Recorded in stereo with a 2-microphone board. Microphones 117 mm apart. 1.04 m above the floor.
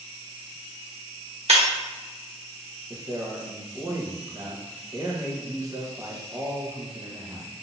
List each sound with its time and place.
1.5 s breaking glass: 65° right (ahead or behind), 1.1 m
2.9 s a man speaking: 30° right (ahead or behind), 1.0 m